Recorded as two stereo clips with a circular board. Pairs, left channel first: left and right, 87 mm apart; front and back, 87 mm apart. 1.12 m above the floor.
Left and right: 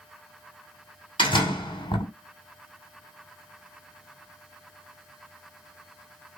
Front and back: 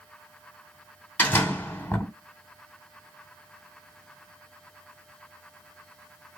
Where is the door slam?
70° left, 2 m.